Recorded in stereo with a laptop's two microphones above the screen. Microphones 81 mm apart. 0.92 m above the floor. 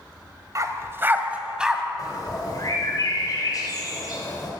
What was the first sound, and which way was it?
A dog barking, 45° right (ahead or behind).